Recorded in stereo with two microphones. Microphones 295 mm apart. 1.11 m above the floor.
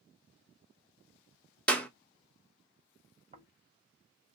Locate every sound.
1.7 s a clap: 5° left (ahead or behind), 0.7 m
3.3 s snoring: 25° right (ahead or behind), 0.9 m